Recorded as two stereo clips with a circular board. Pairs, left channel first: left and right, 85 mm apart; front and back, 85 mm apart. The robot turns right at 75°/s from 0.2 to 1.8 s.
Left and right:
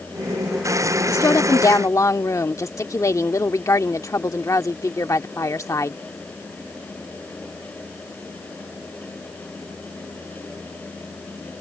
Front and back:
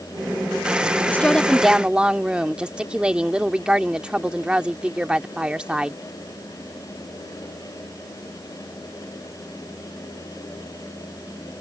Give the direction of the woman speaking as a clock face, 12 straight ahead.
10 o'clock.